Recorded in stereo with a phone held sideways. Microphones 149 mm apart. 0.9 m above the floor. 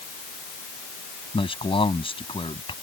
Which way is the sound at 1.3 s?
35° left (ahead or behind).